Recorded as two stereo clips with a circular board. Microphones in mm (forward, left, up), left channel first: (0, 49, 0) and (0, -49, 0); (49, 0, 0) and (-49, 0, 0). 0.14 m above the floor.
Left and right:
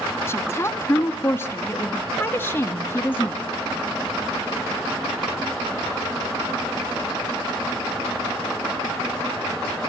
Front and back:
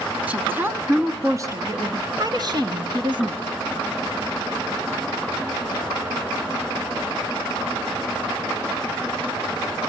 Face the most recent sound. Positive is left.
turn(degrees=160)